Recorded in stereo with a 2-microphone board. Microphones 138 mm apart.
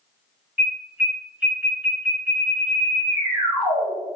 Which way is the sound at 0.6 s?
15° right (ahead or behind).